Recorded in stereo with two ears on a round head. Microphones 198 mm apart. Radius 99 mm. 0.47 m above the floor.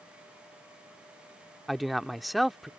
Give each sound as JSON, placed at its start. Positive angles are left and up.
{"t": 1.7, "sound": "a man speaking", "side_deg": 0}